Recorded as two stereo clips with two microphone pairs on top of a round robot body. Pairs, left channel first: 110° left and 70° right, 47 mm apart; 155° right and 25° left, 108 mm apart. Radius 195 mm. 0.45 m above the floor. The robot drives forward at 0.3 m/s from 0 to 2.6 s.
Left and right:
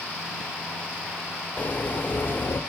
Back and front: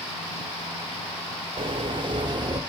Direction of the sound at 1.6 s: 60° left.